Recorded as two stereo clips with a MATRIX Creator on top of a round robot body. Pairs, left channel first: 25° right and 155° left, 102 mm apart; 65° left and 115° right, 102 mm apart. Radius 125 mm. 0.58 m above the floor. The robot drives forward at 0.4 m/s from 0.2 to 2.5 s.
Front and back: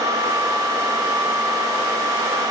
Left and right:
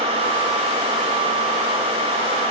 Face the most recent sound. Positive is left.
No sound to turn to.